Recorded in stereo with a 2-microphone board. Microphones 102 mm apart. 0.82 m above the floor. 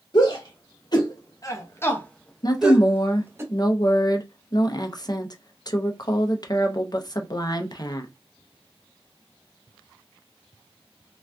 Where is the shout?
50° left (ahead or behind), 1.2 m; by 3.4 s 25° right (ahead or behind), 0.9 m.